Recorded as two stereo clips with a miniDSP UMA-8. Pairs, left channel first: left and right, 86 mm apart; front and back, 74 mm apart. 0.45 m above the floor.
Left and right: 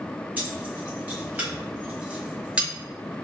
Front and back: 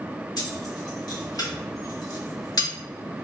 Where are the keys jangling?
20° right, 2.0 m; by 2.7 s 15° right, 0.8 m.